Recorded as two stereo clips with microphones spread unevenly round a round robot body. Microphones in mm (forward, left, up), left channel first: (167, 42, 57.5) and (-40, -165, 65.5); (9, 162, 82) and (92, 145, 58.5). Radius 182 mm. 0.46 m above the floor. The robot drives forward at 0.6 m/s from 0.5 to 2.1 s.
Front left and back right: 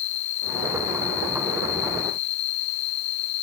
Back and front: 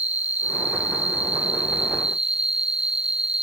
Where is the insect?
65° left; by 3.4 s 70° left.